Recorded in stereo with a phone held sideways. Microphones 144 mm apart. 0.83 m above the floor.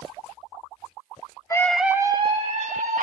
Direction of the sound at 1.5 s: 20° left (ahead or behind).